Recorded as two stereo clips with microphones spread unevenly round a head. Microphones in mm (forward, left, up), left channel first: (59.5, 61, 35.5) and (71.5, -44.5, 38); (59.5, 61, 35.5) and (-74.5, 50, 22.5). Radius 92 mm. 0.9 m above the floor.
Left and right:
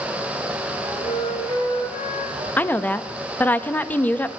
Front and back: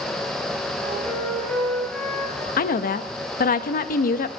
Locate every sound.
0.8 s a flute: 90° left, 5.5 m
2.6 s a woman speaking: 20° left, 0.7 m